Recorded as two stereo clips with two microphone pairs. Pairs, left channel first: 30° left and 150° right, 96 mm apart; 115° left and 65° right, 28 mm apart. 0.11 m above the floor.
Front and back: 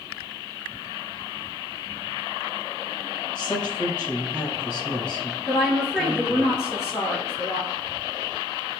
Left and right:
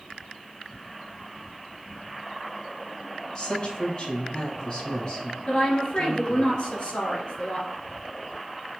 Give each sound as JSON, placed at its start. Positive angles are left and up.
{"t": 3.4, "sound": "a woman speaking", "azimuth_deg": 95, "distance_m": 1.3}
{"t": 5.5, "sound": "a woman speaking", "azimuth_deg": 95, "distance_m": 1.6}